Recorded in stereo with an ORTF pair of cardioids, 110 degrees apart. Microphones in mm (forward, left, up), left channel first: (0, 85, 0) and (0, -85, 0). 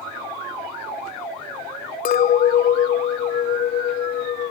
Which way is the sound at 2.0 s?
60° left.